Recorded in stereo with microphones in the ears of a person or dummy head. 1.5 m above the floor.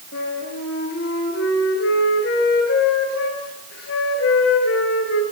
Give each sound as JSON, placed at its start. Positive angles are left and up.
{"t": 0.1, "sound": "a flute", "side_deg": 70, "distance_m": 6.0}